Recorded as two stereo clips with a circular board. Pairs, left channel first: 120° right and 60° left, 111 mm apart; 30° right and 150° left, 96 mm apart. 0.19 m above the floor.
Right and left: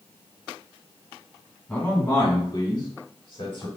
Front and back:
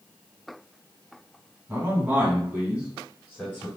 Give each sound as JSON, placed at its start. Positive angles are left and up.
{"t": 1.7, "sound": "a man speaking", "azimuth_deg": 180, "distance_m": 1.5}